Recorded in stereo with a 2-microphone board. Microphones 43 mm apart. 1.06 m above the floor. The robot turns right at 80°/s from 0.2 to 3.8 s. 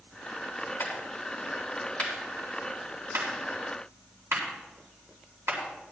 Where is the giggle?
I don't hear a giggle.